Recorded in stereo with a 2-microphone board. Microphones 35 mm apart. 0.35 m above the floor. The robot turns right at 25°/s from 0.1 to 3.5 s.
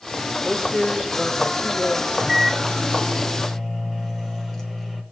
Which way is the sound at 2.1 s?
20° right.